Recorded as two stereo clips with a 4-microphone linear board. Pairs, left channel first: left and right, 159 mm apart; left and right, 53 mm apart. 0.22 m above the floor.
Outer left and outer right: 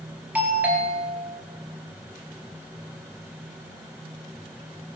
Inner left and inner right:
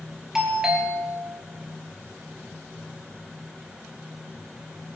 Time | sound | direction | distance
0.3 | a doorbell | 10° right (ahead or behind) | 5 m